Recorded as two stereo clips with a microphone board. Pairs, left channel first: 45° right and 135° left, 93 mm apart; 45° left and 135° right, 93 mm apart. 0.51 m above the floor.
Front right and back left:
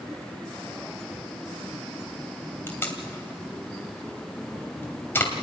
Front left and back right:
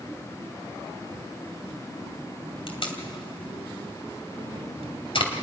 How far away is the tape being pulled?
About 2.5 m.